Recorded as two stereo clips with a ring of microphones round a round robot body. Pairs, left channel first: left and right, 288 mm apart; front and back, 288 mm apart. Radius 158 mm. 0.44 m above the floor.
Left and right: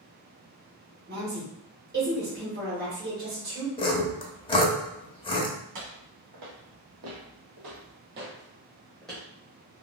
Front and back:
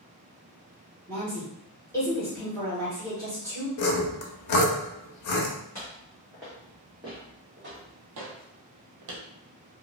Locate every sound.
1.1 s a woman speaking: 75° right, 1.5 m
3.8 s sawing: 15° left, 0.7 m
5.8 s footsteps: 85° right, 1.7 m; by 9.2 s 175° left, 1.1 m